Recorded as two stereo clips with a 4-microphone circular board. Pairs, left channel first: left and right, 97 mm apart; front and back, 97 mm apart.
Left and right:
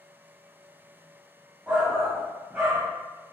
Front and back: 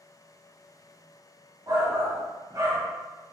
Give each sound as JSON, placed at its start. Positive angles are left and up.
{"t": 1.7, "sound": "a shout", "azimuth_deg": -160, "distance_m": 0.7}